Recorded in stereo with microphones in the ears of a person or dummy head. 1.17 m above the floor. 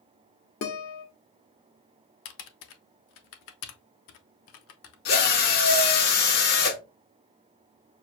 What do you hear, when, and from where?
0.6 s a guitar: 65° left (ahead or behind), 1.1 m
2.2 s typing on a keyboard: 70° left (ahead or behind), 0.7 m
5.0 s a drill: 50° left (ahead or behind), 1.6 m